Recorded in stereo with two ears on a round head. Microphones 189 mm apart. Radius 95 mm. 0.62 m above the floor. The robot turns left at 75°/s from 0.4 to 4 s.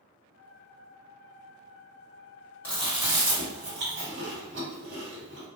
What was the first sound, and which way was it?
Chewing, 10° left (ahead or behind).